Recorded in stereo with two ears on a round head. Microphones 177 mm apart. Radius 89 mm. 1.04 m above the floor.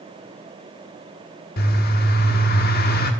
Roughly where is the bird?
Left.